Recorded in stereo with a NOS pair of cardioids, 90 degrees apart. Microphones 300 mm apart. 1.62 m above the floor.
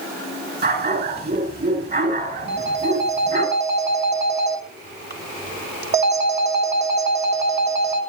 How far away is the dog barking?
About 5 m.